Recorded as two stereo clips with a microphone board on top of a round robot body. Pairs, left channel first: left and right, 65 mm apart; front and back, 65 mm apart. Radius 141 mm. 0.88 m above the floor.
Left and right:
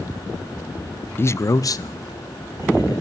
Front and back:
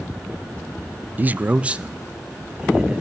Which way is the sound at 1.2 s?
130° left.